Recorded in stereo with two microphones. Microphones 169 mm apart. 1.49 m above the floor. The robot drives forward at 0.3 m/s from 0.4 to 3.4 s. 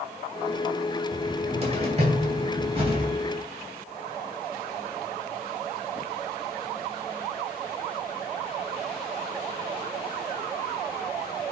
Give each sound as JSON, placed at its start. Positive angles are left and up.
{"t": 1.1, "sound": "a cupboard door", "side_deg": -40, "distance_m": 2.5}